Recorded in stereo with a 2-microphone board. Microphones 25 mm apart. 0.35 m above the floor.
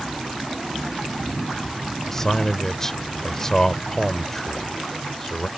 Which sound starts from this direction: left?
A man speaking, at 2.1 s.